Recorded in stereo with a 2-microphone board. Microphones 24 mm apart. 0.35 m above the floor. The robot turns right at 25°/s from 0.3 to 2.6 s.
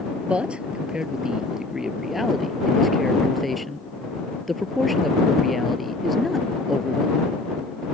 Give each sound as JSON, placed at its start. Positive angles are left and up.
{"t": 0.2, "sound": "a man speaking", "azimuth_deg": -55}